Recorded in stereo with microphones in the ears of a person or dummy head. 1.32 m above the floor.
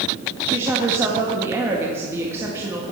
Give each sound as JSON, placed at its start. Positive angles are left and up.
{"t": 0.5, "sound": "a woman speaking", "side_deg": -15, "distance_m": 1.6}